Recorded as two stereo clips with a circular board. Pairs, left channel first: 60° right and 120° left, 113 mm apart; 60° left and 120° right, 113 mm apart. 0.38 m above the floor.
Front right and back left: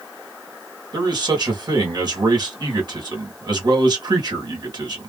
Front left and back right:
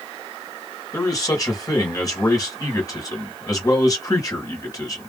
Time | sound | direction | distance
0.9 | a man speaking | 100° left | 1.5 m